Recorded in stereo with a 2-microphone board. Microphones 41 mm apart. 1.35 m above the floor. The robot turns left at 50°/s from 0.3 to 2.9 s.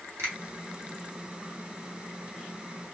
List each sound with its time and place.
0.2 s a finger snap: 85° right, 1.2 m